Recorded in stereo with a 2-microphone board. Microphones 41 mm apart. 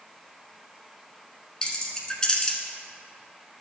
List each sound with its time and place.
1.6 s keys jangling: 20° left (ahead or behind), 0.9 m